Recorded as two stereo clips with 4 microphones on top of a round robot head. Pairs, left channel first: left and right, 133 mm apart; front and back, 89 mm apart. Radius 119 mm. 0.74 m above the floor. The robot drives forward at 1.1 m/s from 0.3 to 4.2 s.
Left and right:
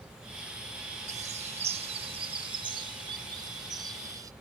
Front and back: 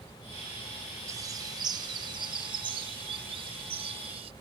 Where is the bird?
120° right; by 4.3 s 155° right.